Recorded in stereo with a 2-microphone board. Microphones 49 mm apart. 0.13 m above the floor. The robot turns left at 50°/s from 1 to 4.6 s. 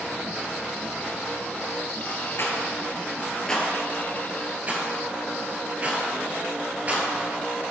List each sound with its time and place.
2.4 s a rattle: 55° left (ahead or behind), 1.3 m; by 7.1 s 30° right (ahead or behind), 1.3 m